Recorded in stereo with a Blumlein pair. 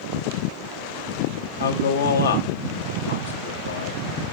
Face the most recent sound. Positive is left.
turn(degrees=65)